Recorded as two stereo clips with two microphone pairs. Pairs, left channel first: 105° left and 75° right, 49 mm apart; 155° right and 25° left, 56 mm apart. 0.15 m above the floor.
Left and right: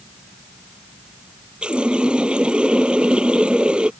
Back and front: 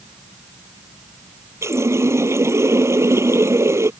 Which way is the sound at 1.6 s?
10° right.